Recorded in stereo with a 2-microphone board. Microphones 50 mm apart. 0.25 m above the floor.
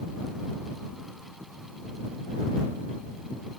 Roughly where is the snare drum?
I don't hear a snare drum.